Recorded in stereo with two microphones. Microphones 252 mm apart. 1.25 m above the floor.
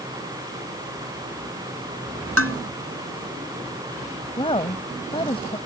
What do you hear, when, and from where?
2.4 s dishes clattering: 60° right (ahead or behind)
4.4 s a woman speaking: 20° left (ahead or behind)